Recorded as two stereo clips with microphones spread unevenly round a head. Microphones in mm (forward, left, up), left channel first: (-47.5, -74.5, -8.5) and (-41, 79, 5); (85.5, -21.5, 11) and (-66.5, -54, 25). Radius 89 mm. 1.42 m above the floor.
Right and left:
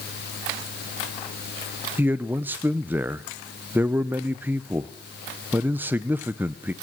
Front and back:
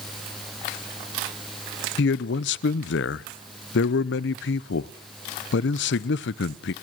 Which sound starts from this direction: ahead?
A man speaking, at 2.0 s.